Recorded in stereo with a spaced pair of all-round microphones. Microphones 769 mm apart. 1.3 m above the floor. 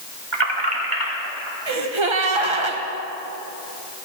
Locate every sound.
0.3 s keys jangling: 35° right (ahead or behind), 1.2 m; by 1.6 s 25° right (ahead or behind), 2.5 m
1.7 s a gasp: 40° right (ahead or behind), 0.9 m